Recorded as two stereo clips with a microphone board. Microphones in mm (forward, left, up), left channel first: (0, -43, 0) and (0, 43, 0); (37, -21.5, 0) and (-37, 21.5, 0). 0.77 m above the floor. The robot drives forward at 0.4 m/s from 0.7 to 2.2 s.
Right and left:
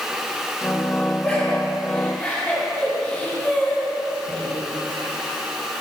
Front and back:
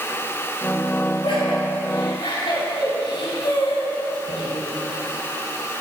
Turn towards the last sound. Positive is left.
turn(degrees=-10)